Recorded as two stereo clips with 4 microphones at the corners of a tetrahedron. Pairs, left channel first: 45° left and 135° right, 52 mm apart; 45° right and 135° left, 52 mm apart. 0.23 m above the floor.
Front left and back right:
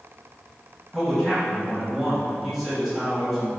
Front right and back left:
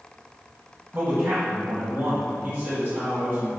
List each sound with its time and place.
0.9 s a man speaking: 145° left, 1.5 m